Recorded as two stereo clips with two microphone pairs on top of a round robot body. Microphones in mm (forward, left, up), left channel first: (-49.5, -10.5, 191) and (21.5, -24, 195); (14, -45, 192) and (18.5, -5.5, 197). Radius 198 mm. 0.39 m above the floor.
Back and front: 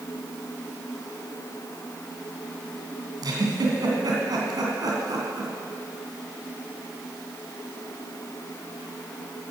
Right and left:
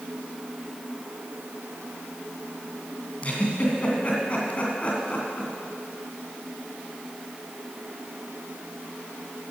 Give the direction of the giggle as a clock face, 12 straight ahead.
1 o'clock.